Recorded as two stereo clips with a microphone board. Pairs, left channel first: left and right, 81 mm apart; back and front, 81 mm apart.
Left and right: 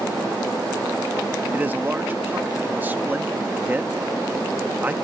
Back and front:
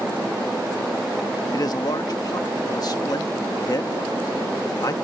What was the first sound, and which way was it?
A man speaking, 155° right.